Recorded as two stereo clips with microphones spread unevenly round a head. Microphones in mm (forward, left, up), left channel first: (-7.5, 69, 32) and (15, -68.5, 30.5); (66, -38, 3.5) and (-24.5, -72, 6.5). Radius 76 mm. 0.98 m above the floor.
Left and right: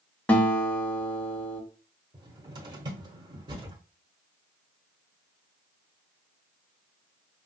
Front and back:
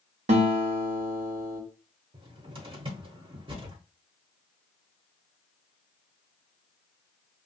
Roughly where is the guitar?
Behind.